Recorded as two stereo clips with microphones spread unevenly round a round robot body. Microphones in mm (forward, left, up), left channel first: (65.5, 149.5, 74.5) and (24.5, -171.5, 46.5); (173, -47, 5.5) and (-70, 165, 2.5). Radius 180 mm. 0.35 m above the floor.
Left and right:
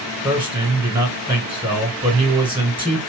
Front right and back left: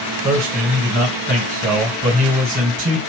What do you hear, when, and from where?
0.2 s a man speaking: 165° right, 2 m